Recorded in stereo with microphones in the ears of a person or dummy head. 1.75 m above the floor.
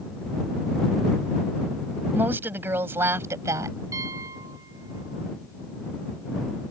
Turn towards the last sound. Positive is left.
turn(degrees=-20)  # may be behind; listen again after turning